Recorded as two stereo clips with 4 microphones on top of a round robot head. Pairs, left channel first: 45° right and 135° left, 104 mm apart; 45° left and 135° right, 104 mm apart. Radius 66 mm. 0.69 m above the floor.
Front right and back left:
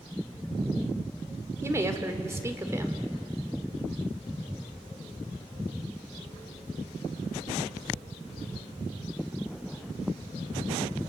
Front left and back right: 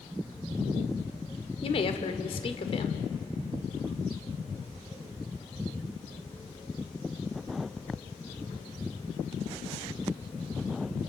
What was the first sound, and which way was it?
A woman speaking, 70° left.